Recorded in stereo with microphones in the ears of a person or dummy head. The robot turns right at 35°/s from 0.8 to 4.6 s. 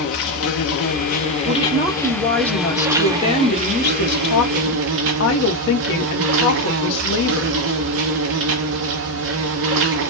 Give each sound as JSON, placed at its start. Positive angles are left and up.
{"t": 0.0, "sound": "an insect", "azimuth_deg": 125, "distance_m": 0.8}
{"t": 1.4, "sound": "a woman speaking", "azimuth_deg": -25, "distance_m": 1.5}